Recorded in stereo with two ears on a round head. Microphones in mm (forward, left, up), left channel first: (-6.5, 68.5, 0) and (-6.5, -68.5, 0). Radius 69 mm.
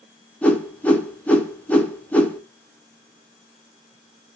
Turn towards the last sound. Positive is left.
turn(degrees=10)  # may be behind; listen again after turning